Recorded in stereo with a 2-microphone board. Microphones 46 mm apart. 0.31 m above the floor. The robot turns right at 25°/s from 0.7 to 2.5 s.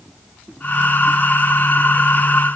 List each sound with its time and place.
Only background noise.